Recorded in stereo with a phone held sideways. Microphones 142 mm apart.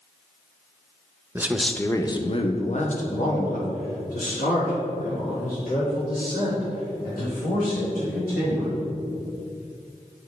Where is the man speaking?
15° right (ahead or behind), 0.6 m; by 8.8 s 85° left, 5 m.